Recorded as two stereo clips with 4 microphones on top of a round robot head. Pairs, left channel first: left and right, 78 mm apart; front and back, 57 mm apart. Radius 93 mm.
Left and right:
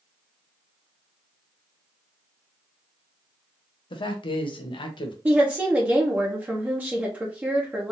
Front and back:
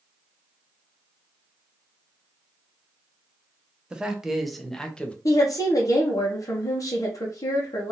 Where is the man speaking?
105° left, 1.1 m; by 5.2 s 70° left, 1.0 m.